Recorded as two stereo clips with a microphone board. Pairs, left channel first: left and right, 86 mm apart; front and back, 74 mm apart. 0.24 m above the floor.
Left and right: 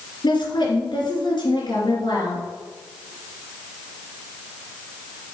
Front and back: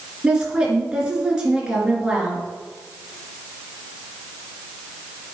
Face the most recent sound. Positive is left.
turn(degrees=105)